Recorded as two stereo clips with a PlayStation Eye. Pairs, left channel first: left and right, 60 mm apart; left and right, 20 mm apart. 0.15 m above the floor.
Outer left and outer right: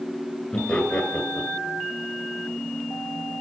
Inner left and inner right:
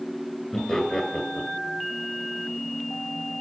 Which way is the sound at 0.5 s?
5° left (ahead or behind).